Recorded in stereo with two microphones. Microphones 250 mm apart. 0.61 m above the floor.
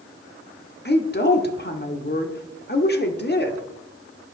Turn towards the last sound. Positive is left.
turn(degrees=40)  # may be behind; listen again after turning